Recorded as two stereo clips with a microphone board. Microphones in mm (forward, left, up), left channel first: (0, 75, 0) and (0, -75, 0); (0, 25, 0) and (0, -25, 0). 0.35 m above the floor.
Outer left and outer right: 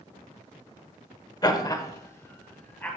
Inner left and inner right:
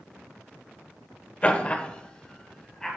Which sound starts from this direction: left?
Laughter, at 1.4 s.